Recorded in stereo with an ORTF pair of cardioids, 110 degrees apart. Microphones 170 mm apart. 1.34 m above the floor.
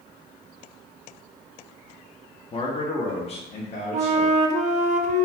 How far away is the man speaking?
About 0.8 m.